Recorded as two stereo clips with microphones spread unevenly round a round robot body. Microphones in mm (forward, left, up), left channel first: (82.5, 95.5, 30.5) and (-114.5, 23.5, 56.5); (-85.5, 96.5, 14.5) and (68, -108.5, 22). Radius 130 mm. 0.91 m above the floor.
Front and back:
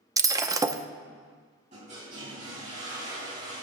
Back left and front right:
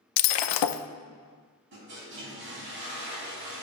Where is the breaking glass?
125° left, 0.6 m.